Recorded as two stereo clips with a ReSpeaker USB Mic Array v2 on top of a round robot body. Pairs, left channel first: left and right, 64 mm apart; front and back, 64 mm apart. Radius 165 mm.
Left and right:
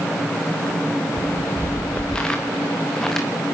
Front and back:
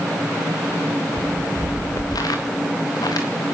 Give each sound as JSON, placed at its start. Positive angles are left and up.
{"t": 1.2, "sound": "footsteps", "azimuth_deg": 20, "distance_m": 3.0}